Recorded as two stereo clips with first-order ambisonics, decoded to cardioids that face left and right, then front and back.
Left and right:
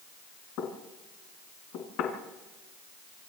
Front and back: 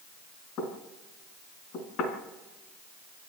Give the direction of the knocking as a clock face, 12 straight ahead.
10 o'clock.